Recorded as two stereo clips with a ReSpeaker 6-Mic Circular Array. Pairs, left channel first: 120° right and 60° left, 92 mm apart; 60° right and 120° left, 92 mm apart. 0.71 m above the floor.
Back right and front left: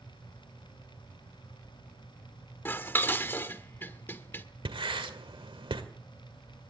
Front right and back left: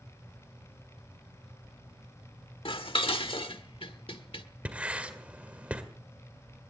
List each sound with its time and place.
2.6 s dishes clattering: 55° right, 1.2 m
4.7 s writing: 45° left, 1.8 m